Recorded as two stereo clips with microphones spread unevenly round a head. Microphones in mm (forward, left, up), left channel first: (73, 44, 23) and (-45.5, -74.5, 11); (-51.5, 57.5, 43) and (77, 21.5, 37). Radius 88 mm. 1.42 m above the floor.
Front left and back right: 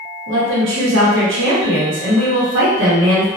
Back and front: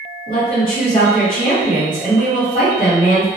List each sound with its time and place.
0.3 s a woman speaking: 140° right, 1.0 m